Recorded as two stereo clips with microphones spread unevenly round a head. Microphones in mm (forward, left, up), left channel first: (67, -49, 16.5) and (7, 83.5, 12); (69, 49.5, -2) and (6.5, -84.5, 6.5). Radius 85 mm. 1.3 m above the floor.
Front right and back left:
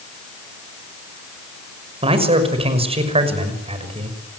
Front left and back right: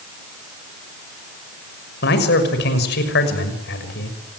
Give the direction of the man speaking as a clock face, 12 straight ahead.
10 o'clock.